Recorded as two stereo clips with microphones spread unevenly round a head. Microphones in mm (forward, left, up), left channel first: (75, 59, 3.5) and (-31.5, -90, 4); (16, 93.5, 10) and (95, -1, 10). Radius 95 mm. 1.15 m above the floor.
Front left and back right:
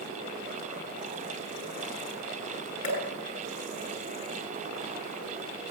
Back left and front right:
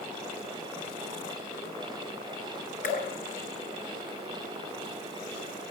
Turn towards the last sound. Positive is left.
turn(degrees=110)